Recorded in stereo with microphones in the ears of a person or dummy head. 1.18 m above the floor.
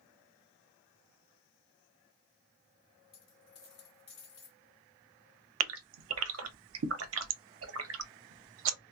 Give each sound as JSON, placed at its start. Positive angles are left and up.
{"t": 3.1, "sound": "a dropped coin", "side_deg": 40, "distance_m": 2.0}
{"t": 5.6, "sound": "a gasp", "side_deg": -75, "distance_m": 0.5}